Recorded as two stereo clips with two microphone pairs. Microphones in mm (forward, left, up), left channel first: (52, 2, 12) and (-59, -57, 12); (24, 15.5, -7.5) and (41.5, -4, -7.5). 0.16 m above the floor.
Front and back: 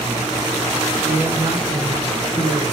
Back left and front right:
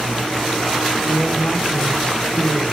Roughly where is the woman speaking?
Behind left.